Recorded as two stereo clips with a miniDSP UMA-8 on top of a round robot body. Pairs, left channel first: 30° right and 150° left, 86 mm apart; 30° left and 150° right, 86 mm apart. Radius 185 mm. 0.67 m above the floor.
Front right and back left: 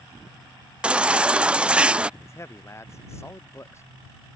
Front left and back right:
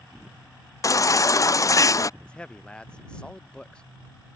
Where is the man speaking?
40° right.